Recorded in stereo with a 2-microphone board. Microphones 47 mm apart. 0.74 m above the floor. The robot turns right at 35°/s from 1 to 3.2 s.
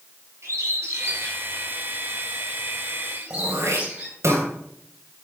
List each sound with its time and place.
0.4 s a bird: 65° right (ahead or behind), 6.5 m; by 4.2 s 35° right (ahead or behind), 6.5 m
3.3 s throat clearing: 75° right (ahead or behind), 3.5 m